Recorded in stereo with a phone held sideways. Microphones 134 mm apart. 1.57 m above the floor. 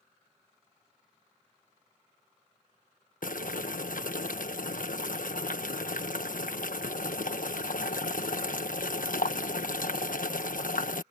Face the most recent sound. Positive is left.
turn(degrees=80)